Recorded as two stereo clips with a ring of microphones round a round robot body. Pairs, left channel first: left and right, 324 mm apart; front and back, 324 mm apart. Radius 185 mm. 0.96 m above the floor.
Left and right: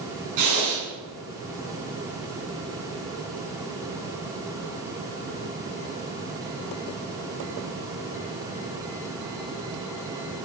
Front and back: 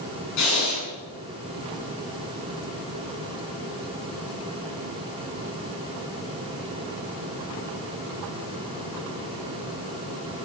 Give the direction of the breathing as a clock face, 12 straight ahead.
2 o'clock.